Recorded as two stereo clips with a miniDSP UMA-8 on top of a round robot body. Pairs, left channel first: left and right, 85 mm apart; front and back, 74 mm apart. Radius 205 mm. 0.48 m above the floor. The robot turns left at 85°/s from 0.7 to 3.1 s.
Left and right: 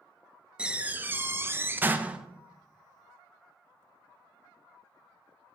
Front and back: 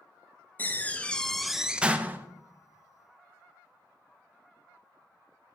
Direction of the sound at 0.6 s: 25° right.